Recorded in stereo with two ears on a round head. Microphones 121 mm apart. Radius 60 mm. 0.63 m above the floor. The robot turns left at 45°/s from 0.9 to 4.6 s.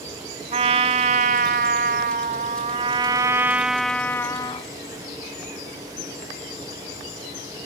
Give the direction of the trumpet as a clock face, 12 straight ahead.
2 o'clock.